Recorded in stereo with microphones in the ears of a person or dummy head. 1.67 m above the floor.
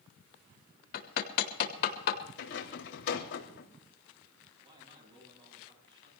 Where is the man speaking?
20° right (ahead or behind), 8 m.